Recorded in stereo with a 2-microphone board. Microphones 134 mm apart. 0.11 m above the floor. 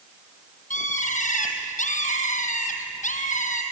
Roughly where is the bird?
Left.